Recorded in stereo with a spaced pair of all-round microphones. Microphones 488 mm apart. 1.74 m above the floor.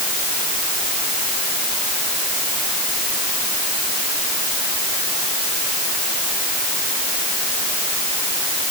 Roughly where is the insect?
I don't hear an insect.